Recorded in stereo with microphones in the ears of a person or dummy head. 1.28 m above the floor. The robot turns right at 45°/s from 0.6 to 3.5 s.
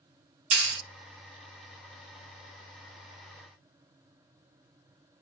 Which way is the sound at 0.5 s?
60° right (ahead or behind).